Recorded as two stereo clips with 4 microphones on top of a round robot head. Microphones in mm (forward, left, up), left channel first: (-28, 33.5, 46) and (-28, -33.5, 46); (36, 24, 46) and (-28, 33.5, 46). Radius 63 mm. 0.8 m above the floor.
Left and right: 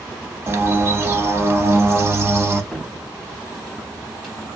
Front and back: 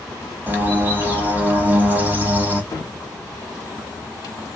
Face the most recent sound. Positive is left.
turn(degrees=5)